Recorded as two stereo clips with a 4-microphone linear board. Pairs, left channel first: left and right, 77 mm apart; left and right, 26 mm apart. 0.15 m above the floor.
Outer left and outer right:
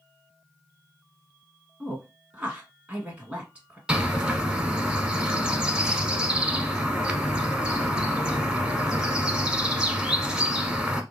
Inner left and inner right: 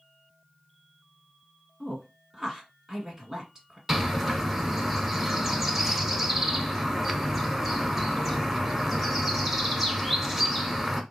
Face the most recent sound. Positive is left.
turn(degrees=-10)  # may be behind; listen again after turning